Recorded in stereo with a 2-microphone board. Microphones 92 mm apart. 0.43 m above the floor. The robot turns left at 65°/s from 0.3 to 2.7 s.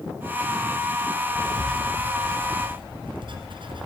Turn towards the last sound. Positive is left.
turn(degrees=-60)  # may be behind; listen again after turning